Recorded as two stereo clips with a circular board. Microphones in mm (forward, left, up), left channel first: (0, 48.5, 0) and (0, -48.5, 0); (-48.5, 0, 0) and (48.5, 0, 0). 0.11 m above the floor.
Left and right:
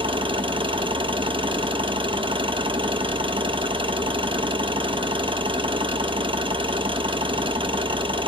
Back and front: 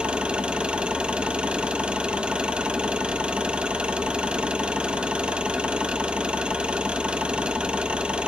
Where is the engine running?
80° right, 0.8 m.